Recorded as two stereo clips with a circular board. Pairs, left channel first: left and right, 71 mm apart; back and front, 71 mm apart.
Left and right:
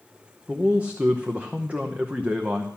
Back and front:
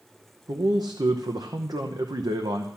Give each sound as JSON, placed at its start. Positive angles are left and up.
{"t": 0.5, "sound": "a man speaking", "azimuth_deg": -20, "distance_m": 0.9}